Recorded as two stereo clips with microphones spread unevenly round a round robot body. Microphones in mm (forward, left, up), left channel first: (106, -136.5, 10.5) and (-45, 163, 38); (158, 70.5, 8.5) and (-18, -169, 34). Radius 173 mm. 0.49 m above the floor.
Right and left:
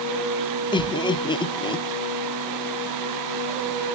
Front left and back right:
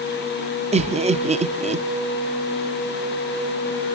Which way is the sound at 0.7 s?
90° right.